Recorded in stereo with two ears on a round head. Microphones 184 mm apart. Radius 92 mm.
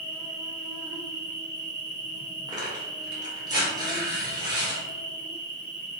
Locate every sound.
0.0 s an insect: 60° right (ahead or behind), 1.0 m
2.5 s tearing paper: 20° right (ahead or behind), 0.8 m